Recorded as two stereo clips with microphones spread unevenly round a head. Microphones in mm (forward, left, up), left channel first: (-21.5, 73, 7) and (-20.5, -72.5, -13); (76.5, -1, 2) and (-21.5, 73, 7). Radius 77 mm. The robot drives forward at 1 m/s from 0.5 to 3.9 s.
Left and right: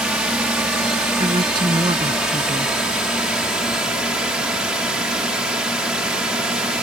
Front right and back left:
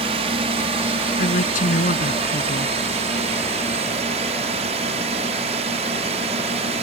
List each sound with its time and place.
0.0 s a drone: 170° right; by 6.8 s 175° right
1.2 s a woman speaking: 25° right